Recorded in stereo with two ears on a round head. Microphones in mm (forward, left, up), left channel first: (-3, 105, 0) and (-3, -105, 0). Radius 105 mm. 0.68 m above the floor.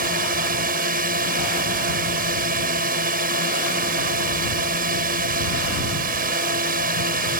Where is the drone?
40° right (ahead or behind).